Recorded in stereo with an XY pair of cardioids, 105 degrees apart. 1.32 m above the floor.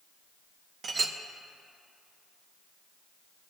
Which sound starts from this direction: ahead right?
A clink, at 0.8 s.